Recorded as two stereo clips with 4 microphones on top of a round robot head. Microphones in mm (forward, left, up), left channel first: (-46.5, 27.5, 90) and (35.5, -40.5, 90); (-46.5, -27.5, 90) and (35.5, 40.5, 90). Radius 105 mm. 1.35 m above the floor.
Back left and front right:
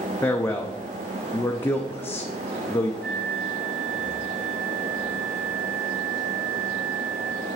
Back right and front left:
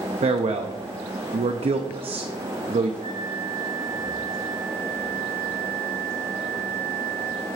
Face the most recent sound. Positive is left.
turn(degrees=35)